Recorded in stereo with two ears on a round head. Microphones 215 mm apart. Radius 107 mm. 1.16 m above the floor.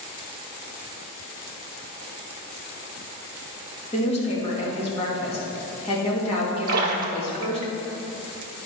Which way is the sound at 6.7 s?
35° right (ahead or behind).